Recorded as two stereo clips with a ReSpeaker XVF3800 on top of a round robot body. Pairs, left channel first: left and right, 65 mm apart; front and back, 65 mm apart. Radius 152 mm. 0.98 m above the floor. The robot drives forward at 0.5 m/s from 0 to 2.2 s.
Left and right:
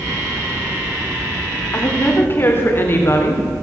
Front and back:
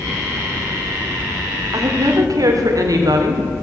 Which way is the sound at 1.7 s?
145° left.